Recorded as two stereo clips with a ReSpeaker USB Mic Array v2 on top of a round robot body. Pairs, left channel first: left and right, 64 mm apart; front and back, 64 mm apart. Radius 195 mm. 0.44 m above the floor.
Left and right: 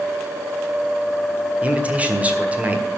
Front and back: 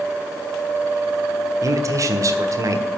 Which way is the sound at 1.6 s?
155° right.